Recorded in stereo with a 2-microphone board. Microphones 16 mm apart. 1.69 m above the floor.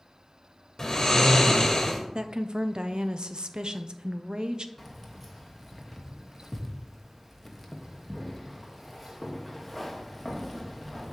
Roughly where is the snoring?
Left.